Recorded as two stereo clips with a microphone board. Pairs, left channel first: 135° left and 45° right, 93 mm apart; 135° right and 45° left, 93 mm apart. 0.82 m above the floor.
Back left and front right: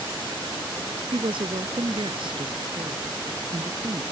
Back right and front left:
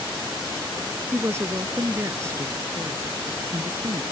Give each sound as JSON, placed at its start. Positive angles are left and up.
{"t": 1.1, "sound": "a woman speaking", "azimuth_deg": -20}